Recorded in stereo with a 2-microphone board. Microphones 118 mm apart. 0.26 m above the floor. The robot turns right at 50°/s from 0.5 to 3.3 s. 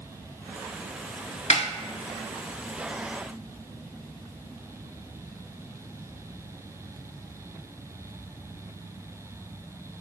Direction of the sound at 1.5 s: 75° left (ahead or behind).